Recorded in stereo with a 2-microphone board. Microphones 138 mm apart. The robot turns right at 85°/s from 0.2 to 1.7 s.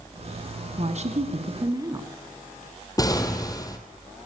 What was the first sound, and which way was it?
A woman speaking, 115° right.